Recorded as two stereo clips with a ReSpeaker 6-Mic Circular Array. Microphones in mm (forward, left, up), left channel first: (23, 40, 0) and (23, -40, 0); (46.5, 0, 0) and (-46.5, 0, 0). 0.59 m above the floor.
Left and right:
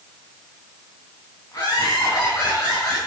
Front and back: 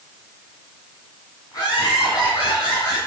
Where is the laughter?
45° left, 5.5 m; by 3.0 s 35° left, 6 m.